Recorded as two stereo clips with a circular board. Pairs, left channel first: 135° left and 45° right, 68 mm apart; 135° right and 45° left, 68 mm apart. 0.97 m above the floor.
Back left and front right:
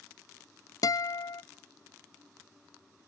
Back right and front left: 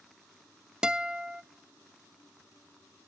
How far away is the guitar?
About 0.5 m.